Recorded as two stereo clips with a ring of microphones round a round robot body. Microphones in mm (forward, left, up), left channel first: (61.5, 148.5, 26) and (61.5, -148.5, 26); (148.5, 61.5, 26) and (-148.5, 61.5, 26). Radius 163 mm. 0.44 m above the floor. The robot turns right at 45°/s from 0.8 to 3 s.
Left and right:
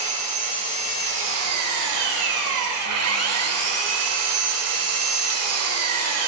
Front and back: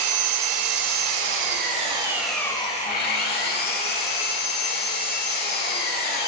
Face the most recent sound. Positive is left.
turn(degrees=-60)